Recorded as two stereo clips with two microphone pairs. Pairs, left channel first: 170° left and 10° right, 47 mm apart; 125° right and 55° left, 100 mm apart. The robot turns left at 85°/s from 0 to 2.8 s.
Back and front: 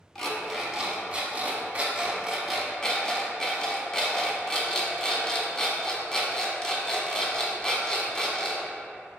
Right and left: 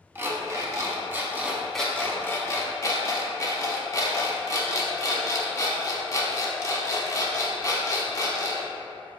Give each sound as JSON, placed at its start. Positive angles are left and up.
{"t": 0.1, "sound": "an alarm clock", "azimuth_deg": 100, "distance_m": 0.6}